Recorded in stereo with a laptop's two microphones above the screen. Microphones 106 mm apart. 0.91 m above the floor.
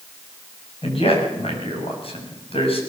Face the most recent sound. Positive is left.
turn(degrees=65)  # may be behind; listen again after turning